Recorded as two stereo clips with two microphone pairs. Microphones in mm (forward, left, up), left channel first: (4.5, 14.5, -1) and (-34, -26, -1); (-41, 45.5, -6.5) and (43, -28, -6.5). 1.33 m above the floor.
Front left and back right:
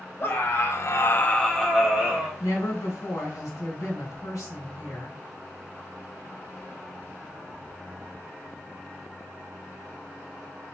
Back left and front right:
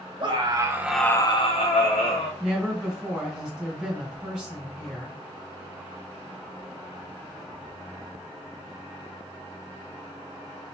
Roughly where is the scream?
Ahead.